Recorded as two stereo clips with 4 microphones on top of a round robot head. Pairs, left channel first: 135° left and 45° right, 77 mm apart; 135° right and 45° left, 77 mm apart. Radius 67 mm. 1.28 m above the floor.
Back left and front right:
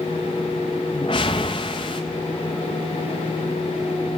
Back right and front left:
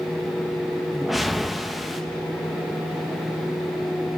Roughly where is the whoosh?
Behind left.